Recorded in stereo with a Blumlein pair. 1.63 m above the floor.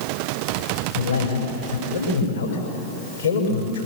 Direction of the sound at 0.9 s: 65° left.